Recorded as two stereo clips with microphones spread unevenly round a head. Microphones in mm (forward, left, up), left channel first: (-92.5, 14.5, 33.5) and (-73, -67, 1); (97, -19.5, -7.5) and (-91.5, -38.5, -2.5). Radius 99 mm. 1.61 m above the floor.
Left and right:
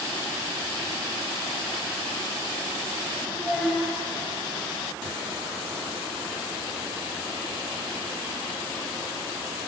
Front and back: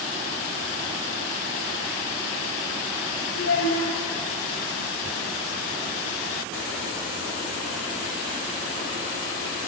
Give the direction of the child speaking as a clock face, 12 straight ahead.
12 o'clock.